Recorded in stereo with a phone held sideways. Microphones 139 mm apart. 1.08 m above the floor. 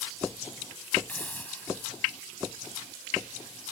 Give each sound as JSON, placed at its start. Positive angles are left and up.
{"t": 1.1, "sound": "a hiss", "side_deg": 10}